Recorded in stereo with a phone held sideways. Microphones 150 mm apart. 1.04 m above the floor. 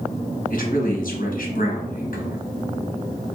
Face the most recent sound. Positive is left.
turn(degrees=65)  # may be behind; listen again after turning